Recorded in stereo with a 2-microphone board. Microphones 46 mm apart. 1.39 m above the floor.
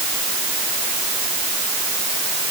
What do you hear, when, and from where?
Only background noise.